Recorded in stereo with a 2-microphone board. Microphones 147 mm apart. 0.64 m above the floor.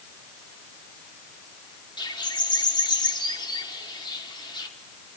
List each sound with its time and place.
2.0 s a bird: 35° left (ahead or behind), 1.3 m